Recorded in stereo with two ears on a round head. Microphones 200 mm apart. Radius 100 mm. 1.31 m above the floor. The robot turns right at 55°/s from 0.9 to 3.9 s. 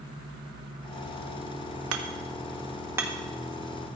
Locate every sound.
1.9 s hammering: 65° right (ahead or behind), 1.3 m; by 3.1 s 5° right (ahead or behind), 1.3 m